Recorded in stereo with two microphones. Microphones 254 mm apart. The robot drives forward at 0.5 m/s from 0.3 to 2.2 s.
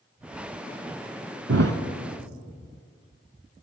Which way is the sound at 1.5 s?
75° right (ahead or behind).